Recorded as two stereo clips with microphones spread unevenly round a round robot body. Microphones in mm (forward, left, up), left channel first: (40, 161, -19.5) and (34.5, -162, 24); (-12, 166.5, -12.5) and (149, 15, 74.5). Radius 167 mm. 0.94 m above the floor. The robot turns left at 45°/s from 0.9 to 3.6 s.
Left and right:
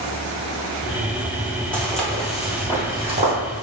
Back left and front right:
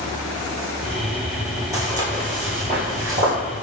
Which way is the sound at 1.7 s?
5° right.